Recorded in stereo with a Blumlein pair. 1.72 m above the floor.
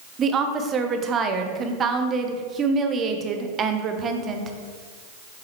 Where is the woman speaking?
25° right, 1.0 m.